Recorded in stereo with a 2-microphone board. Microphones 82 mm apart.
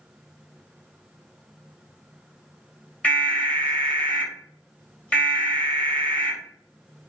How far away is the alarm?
About 1.1 m.